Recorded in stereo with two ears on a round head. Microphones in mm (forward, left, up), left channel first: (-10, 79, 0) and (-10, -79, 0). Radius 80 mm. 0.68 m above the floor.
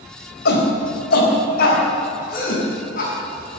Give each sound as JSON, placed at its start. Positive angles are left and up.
{"t": 0.5, "sound": "a shout", "side_deg": 70, "distance_m": 4.0}